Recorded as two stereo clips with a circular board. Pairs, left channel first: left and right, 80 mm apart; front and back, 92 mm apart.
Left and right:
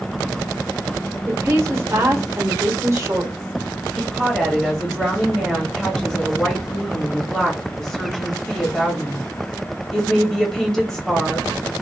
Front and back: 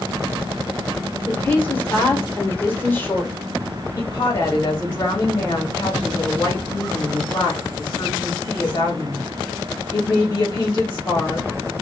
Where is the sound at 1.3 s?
60° right, 1.1 m.